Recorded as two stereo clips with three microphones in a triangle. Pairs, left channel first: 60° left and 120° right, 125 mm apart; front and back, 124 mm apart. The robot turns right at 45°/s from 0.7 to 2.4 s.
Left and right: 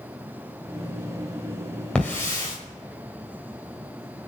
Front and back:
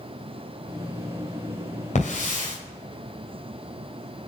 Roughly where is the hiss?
Ahead.